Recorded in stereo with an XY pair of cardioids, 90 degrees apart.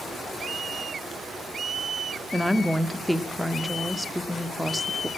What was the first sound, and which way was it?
A woman speaking, 5° right.